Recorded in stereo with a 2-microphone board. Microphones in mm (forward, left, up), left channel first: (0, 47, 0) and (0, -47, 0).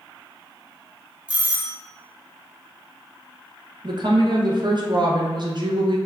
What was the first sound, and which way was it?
A doorbell, 15° right (ahead or behind).